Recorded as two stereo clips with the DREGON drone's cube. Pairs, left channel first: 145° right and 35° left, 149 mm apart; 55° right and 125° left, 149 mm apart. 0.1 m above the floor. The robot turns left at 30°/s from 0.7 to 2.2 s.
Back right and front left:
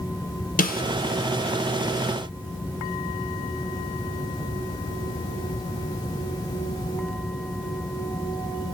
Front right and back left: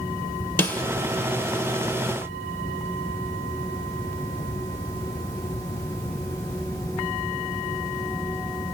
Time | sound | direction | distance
0.6 | a snare drum | 130° right | 1.0 m